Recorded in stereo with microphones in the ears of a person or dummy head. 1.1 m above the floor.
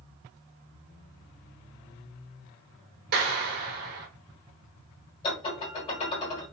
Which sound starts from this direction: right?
A clap, at 3.1 s.